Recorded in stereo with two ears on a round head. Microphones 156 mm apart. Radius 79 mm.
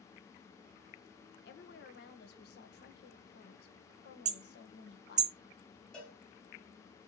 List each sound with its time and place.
1.4 s a woman speaking: 60° left (ahead or behind), 1.6 m
4.2 s hammering: 40° right (ahead or behind), 0.6 m
5.9 s a cowbell: 5° left (ahead or behind), 3.5 m